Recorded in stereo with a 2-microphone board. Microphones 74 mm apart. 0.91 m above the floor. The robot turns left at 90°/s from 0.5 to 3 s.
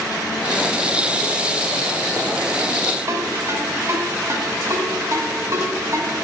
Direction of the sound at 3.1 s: 45° right (ahead or behind).